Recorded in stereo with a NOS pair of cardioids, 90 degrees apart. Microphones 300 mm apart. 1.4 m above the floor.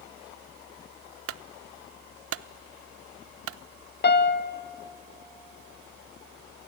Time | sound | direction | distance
1.3 | a clunk | 50° right | 0.6 m
4.0 | a piano | 35° left | 1.3 m